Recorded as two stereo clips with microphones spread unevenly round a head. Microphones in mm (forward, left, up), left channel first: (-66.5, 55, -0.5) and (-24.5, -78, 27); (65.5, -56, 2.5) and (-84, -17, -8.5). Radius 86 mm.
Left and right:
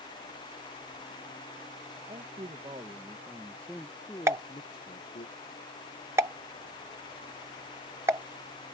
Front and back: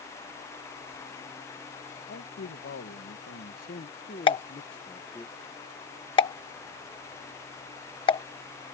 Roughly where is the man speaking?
Ahead.